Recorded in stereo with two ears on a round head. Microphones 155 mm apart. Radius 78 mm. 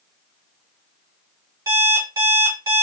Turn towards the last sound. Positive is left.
turn(degrees=-20)  # may be behind; listen again after turning